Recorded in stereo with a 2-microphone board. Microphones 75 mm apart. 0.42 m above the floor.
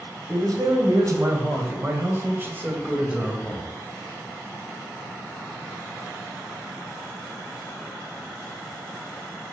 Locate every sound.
0.3 s a man speaking: 55° right (ahead or behind), 2.5 m; by 3.7 s 10° right (ahead or behind), 1.9 m